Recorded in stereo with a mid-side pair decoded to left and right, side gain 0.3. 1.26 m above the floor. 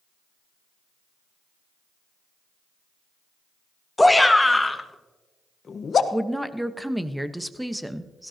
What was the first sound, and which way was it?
A shout, 10° left.